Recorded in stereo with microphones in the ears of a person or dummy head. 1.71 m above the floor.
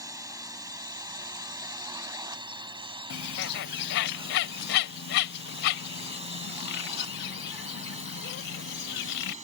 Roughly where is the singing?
I don't hear singing.